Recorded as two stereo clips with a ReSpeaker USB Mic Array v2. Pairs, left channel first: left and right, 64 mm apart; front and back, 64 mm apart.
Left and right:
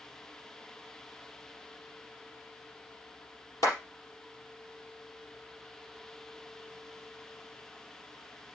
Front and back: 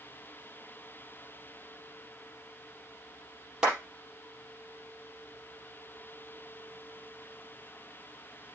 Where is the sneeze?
No sneeze in this recording.